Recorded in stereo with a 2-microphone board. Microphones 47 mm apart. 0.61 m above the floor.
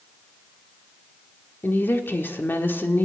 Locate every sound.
1.6 s a woman speaking: 50° left (ahead or behind), 1.7 m